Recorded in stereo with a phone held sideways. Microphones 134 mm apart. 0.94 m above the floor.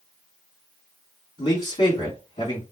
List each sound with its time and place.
1.4 s a man speaking: 50° left (ahead or behind), 2.5 m